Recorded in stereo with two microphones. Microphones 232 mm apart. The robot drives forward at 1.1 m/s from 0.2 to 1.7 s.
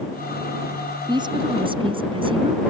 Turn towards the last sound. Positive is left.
turn(degrees=-20)  # may be behind; listen again after turning